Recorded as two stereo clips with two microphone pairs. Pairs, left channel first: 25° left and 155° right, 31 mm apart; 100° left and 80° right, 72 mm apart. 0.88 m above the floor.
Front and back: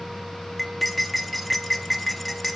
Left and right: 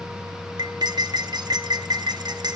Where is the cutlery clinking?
65° right, 0.5 m.